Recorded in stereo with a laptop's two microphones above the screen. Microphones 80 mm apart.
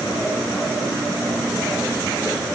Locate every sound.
Only background noise.